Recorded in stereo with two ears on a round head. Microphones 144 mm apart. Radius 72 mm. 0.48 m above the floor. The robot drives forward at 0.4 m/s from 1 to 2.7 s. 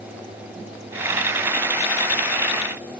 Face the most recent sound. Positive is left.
No sound to turn to.